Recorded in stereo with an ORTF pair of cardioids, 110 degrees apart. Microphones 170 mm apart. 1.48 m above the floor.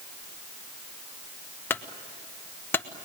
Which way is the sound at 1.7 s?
10° left.